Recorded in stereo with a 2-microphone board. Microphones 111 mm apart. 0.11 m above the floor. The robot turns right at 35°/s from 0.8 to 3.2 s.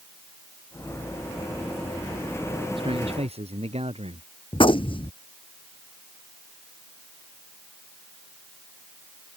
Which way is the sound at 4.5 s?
50° left (ahead or behind).